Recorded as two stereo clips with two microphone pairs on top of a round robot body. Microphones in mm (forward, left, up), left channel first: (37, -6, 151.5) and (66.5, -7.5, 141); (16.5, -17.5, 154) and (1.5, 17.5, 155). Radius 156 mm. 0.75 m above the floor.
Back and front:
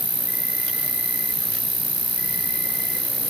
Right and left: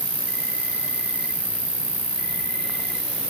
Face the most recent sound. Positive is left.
turn(degrees=-10)